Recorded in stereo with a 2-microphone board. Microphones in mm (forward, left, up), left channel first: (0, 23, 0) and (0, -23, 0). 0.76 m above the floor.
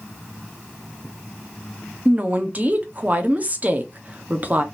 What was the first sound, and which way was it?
A woman speaking, 35° right (ahead or behind).